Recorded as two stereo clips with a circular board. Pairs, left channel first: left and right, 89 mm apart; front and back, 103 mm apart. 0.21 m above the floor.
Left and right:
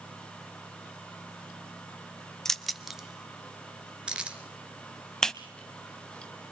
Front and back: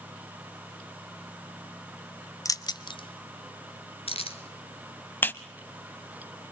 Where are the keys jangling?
10° left, 0.8 m; by 4.4 s 10° right, 2 m.